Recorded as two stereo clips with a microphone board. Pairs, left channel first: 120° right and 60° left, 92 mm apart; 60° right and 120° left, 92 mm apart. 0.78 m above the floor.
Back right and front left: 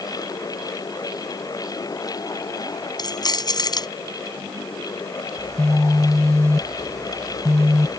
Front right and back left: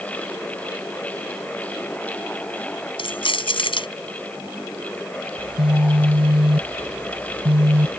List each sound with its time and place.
3.0 s keys jangling: 80° right
5.4 s a phone buzzing: 115° left